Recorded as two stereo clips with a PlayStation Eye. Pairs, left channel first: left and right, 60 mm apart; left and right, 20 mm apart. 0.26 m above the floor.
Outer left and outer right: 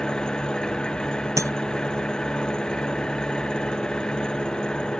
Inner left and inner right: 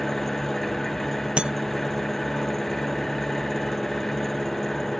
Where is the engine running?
10° left (ahead or behind).